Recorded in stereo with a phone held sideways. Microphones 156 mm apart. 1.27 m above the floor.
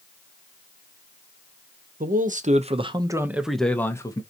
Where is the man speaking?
65° right (ahead or behind), 0.9 m; by 4.2 s 25° left (ahead or behind), 0.9 m.